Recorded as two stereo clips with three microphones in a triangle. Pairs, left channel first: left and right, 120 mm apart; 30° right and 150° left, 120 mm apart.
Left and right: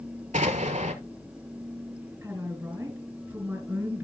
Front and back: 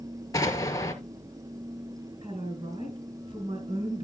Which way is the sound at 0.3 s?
95° right.